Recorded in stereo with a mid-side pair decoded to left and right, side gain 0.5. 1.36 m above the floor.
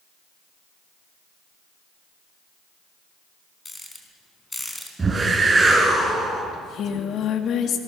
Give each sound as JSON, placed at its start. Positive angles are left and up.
{"t": 3.6, "sound": "a rattle", "azimuth_deg": 15, "distance_m": 4.0}
{"t": 5.0, "sound": "a whoosh", "azimuth_deg": -25, "distance_m": 7.0}
{"t": 6.5, "sound": "singing", "azimuth_deg": 60, "distance_m": 1.8}